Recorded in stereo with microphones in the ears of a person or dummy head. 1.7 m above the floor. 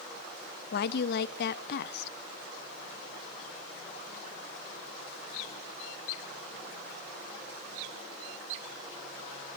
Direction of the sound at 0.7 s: 65° left (ahead or behind).